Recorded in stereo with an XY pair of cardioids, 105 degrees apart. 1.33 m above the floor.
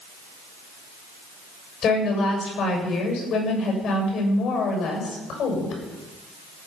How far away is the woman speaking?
About 7 m.